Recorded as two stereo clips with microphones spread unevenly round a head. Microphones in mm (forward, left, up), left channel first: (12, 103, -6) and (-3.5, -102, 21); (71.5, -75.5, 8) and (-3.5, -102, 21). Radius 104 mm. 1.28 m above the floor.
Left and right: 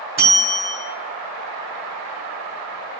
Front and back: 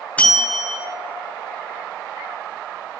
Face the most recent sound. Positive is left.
turn(degrees=-55)